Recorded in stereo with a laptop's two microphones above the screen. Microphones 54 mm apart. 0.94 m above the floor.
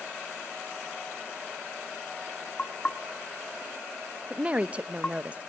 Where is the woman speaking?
20° right (ahead or behind), 0.6 m.